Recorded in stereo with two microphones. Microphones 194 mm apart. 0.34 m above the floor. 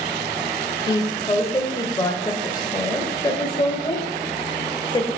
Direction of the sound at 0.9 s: 20° left (ahead or behind).